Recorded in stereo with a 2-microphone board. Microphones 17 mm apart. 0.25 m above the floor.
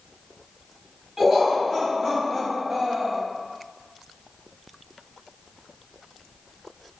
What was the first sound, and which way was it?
Laughter, 30° right (ahead or behind).